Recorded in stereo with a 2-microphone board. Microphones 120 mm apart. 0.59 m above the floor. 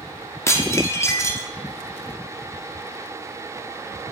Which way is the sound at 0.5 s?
25° left (ahead or behind).